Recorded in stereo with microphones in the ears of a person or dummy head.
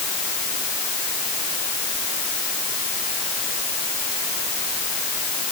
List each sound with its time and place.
Only background noise.